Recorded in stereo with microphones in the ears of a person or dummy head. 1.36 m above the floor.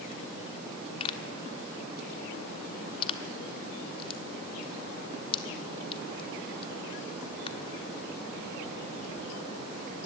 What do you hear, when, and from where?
1.0 s a pop: 30° left (ahead or behind), 1.4 m